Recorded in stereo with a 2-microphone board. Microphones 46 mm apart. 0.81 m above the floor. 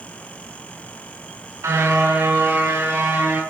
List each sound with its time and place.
1.6 s a car horn: 90° right, 5 m; by 3.4 s 75° right (ahead or behind), 6.5 m